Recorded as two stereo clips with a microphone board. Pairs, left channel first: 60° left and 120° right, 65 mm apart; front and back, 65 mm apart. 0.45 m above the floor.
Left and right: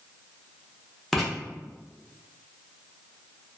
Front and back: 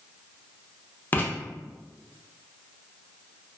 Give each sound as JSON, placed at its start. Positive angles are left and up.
{"t": 1.1, "sound": "writing", "azimuth_deg": -25, "distance_m": 0.7}